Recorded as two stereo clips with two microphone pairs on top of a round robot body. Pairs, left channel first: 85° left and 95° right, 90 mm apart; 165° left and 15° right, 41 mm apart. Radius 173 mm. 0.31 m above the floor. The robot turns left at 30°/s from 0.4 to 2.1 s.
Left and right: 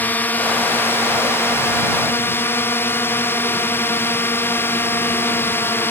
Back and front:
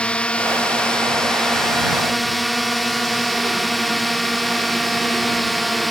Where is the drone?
120° left; by 5.9 s 70° left.